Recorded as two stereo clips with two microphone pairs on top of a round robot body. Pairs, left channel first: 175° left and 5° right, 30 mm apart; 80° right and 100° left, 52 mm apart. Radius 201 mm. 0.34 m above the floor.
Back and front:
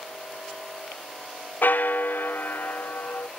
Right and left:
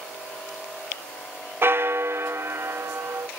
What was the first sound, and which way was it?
A bell, 145° left.